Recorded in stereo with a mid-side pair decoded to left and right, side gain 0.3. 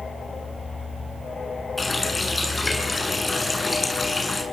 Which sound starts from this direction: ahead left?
A running tap, at 1.8 s.